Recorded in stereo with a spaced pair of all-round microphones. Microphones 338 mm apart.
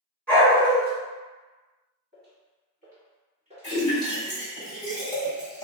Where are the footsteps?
30° right (ahead or behind), 1.7 m; by 4.4 s 10° right (ahead or behind), 1.9 m.